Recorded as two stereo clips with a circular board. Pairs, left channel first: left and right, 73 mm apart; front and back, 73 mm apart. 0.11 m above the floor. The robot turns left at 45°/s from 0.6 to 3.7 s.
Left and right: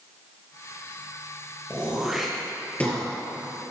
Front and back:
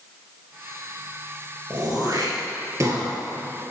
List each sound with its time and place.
1.7 s throat clearing: 155° right, 2.5 m; by 3.0 s 145° left, 2.5 m